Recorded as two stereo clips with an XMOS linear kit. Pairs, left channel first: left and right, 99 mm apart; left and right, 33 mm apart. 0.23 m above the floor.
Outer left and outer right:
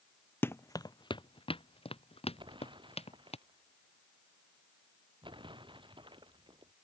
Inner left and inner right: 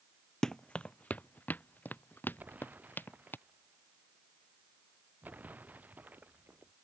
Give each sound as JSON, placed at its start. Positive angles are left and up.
{"t": 0.4, "sound": "running footsteps", "side_deg": 20}
{"t": 2.4, "sound": "an explosion", "side_deg": -55}